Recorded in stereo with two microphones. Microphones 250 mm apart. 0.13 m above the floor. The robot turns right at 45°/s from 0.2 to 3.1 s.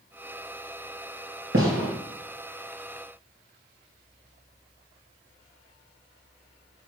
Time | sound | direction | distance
1.5 | a gunshot | 55° right (ahead or behind) | 3 m